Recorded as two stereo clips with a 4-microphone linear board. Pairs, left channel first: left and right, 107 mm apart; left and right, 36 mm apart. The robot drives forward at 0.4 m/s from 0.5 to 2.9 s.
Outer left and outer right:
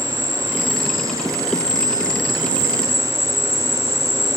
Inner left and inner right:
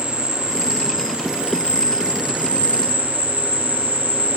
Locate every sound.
0.0 s an insect: 25° right (ahead or behind), 1.4 m; by 4.4 s 55° right (ahead or behind), 0.7 m